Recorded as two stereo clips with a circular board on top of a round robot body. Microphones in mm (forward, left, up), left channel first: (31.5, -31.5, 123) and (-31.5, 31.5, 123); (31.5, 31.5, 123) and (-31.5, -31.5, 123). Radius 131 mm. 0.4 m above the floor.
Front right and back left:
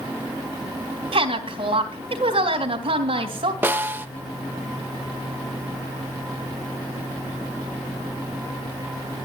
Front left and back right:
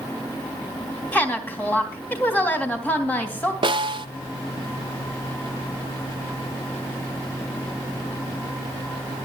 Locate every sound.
1.1 s a woman speaking: 115° left, 3 m
3.6 s a snare drum: 160° right, 1.0 m